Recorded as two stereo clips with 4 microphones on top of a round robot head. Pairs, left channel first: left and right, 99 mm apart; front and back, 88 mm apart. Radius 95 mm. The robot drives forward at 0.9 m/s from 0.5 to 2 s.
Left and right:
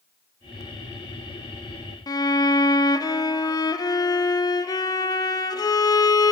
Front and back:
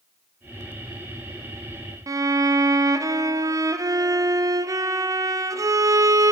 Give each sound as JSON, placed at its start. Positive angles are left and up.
{"t": 2.1, "sound": "a violin", "azimuth_deg": 135, "distance_m": 0.6}